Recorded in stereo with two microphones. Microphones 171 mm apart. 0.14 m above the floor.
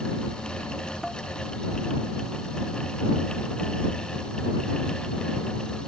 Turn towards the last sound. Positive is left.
turn(degrees=0)  # may be behind; listen again after turning